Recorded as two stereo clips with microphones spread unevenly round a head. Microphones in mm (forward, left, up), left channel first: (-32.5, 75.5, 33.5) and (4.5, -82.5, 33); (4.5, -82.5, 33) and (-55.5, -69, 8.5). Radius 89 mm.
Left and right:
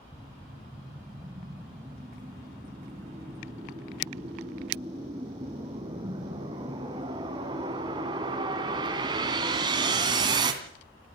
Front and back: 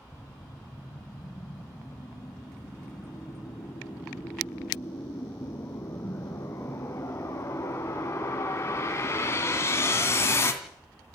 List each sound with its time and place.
0.1 s a whoosh: 10° right, 2.5 m